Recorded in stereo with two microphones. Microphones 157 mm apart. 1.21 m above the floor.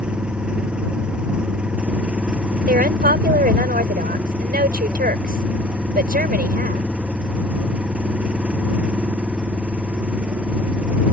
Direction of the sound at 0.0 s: 5° right (ahead or behind).